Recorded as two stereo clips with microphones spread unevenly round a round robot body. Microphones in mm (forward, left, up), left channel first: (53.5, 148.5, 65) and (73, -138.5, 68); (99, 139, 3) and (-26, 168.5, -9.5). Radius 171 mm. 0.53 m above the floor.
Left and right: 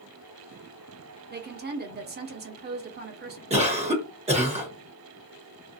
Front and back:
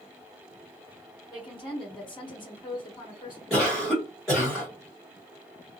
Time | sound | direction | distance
1.3 | a woman speaking | 55° right | 0.7 m
3.5 | a cough | 110° right | 1.1 m